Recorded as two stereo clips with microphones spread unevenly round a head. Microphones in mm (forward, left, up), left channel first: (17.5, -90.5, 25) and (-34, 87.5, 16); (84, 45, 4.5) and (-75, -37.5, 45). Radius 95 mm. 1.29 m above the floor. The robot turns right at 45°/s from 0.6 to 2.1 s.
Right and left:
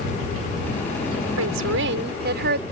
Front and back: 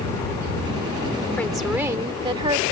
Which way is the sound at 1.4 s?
110° left.